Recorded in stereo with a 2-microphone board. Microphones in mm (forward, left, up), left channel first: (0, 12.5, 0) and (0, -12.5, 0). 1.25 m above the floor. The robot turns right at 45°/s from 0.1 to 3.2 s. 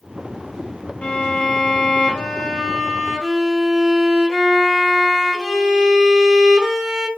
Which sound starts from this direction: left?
A violin, at 1.0 s.